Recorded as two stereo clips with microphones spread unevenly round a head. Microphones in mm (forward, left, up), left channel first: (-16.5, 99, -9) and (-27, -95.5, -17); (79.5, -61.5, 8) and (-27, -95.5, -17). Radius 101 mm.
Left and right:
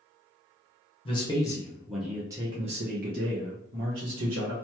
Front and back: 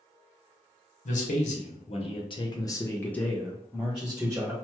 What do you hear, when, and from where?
1.1 s a man speaking: 20° left, 1.0 m; by 4.5 s 95° right, 1.3 m